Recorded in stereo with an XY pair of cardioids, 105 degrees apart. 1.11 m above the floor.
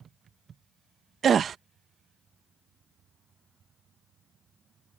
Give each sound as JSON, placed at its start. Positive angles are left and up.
{"t": 1.2, "sound": "a gasp", "azimuth_deg": -50}